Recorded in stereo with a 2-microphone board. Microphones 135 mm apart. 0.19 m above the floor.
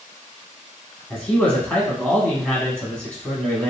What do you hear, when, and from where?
1.1 s a man speaking: 10° left (ahead or behind), 1.1 m